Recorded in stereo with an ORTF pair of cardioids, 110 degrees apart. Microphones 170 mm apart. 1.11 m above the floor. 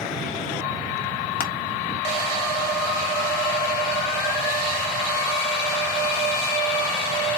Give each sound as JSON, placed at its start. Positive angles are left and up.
{"t": 1.4, "sound": "crushing", "azimuth_deg": 65, "distance_m": 1.3}